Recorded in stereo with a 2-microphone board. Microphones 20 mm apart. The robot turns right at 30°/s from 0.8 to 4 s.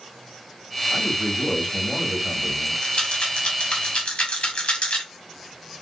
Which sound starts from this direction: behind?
A man speaking, at 0.9 s.